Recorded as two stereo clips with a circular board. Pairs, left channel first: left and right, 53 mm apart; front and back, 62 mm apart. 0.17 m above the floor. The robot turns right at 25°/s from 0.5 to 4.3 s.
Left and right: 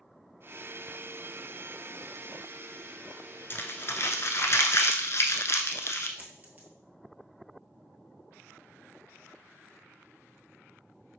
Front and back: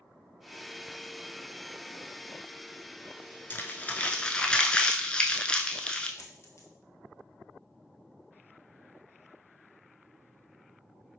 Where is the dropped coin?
30° right, 1.0 m.